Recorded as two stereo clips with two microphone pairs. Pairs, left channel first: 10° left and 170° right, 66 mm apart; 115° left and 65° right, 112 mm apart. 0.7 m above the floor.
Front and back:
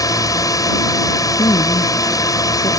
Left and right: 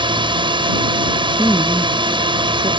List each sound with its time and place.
0.0 s a drone: 20° right
1.4 s a woman speaking: 20° left